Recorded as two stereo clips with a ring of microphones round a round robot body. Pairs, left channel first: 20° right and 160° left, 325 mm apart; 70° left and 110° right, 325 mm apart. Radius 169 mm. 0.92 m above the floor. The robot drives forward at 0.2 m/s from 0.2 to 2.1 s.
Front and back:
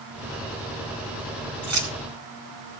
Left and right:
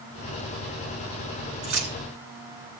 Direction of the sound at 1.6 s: 155° right.